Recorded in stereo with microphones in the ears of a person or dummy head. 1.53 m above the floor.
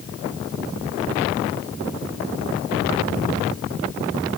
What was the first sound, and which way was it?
Only background noise.